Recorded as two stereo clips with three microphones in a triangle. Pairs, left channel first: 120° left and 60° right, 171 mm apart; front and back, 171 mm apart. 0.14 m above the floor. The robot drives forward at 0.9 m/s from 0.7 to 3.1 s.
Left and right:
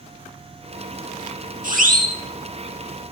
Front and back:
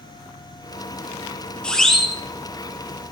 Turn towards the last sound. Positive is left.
turn(degrees=-110)